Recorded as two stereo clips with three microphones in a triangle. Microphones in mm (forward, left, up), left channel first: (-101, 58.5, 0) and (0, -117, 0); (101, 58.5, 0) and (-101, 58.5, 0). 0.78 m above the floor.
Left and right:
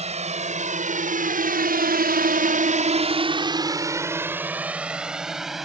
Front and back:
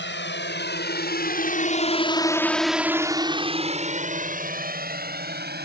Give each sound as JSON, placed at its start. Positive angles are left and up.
{"t": 0.0, "sound": "a drone", "azimuth_deg": -5}